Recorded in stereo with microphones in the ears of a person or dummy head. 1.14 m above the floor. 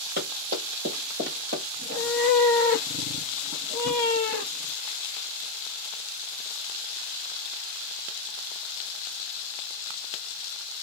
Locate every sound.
0.2 s running footsteps: 40° right (ahead or behind), 1.6 m
1.8 s a cat meowing: 45° right (ahead or behind), 1.5 m